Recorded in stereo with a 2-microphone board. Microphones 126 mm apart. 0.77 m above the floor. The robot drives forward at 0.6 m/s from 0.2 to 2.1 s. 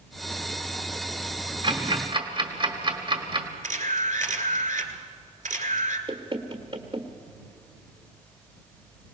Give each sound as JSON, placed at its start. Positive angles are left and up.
{"t": 1.6, "sound": "ticking", "side_deg": -40, "distance_m": 1.5}
{"t": 3.6, "sound": "a camera shutter", "side_deg": -75, "distance_m": 1.8}
{"t": 6.1, "sound": "knocking", "side_deg": -40, "distance_m": 1.3}